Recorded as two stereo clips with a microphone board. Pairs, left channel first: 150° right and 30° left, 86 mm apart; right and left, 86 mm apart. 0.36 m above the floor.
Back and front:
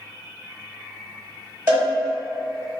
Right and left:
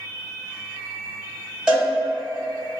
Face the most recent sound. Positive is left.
turn(degrees=30)